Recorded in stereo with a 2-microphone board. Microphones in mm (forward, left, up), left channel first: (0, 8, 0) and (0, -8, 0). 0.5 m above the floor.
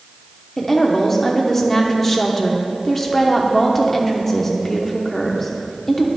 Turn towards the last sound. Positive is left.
turn(degrees=20)  # may be behind; listen again after turning